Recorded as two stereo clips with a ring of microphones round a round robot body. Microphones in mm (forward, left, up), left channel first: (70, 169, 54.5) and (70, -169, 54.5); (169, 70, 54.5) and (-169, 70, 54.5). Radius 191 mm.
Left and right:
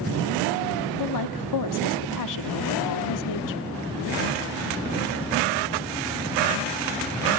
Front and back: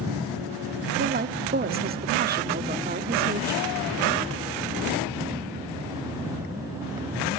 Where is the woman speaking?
120° left, 1.6 m.